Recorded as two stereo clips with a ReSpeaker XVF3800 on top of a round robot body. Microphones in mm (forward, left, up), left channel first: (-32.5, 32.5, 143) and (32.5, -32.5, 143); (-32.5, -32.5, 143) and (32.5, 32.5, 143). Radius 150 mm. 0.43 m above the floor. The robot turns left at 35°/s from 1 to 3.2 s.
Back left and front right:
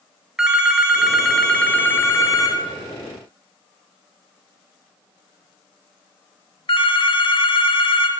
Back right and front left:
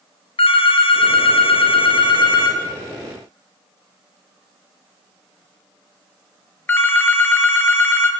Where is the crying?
I don't hear crying.